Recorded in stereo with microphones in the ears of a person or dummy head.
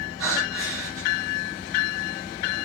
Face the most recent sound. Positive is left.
turn(degrees=-85)